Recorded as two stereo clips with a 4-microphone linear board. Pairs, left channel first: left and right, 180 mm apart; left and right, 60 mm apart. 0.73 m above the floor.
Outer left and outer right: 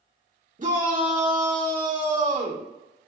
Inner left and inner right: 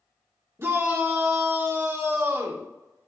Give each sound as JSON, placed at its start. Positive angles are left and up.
{"t": 0.6, "sound": "a shout", "side_deg": -45, "distance_m": 1.5}